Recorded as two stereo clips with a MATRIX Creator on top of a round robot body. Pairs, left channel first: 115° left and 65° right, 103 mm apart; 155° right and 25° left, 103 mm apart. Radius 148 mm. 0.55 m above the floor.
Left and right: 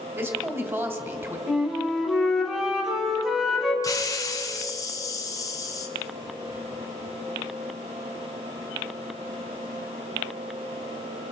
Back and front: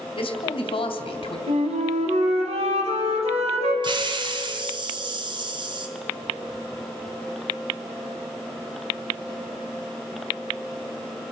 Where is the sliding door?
No sliding door in this recording.